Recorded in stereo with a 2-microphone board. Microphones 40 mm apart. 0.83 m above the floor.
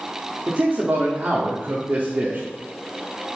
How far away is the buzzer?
I don't hear a buzzer.